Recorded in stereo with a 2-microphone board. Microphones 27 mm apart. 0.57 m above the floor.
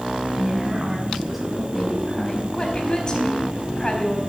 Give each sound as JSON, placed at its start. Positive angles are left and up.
{"t": 0.3, "sound": "a woman speaking", "side_deg": -20, "distance_m": 4.5}
{"t": 2.5, "sound": "a woman speaking", "side_deg": 30, "distance_m": 3.5}